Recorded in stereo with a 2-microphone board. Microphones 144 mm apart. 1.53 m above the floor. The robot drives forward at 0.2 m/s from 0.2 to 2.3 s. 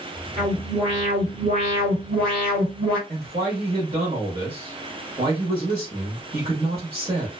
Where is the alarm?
45° right (ahead or behind), 1.5 m; by 3.0 s 40° right (ahead or behind), 1.8 m.